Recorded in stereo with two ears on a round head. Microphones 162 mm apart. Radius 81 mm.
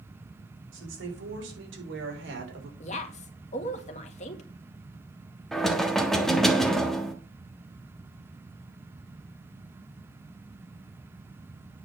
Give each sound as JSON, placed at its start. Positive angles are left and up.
{"t": 0.7, "sound": "a woman speaking", "side_deg": -75, "distance_m": 6.5}
{"t": 2.8, "sound": "a woman speaking", "side_deg": 40, "distance_m": 2.0}
{"t": 5.5, "sound": "knocking", "side_deg": 0, "distance_m": 1.3}